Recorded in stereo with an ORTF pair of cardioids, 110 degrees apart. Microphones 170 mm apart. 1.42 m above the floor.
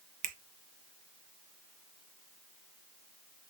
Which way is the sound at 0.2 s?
50° right.